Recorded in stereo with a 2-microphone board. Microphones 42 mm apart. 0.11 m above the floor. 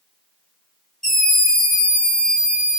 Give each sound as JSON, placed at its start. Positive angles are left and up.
{"t": 1.0, "sound": "a scream", "side_deg": 10, "distance_m": 1.2}